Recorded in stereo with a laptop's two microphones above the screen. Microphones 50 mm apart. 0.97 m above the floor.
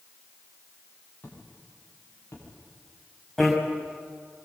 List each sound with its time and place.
1.2 s footsteps: 35° left (ahead or behind), 9.5 m
3.4 s a bicycle bell: centre (ahead or behind), 4.5 m